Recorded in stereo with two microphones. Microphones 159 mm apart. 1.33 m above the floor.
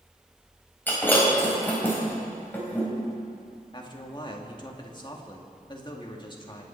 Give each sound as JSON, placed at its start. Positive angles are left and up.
{"t": 0.9, "sound": "breaking glass", "side_deg": 15, "distance_m": 4.0}
{"t": 3.7, "sound": "a man speaking", "side_deg": 30, "distance_m": 1.9}